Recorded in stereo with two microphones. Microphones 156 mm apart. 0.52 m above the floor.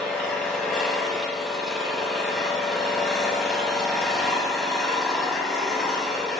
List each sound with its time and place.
0.0 s an engine running: centre (ahead or behind), 1.4 m